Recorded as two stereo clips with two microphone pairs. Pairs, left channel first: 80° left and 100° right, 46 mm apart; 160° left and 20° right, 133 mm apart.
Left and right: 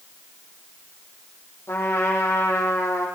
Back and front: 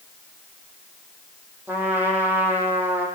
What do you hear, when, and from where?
1.7 s a trumpet: 55° left, 9 m